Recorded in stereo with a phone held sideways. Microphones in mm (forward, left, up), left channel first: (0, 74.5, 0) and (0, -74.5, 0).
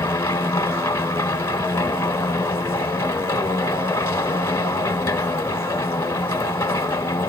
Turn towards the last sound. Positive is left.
turn(degrees=20)  # may be behind; listen again after turning